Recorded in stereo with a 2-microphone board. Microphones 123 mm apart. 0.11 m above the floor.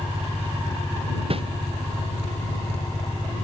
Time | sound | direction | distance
1.3 | a whoosh | 50° right (ahead or behind) | ?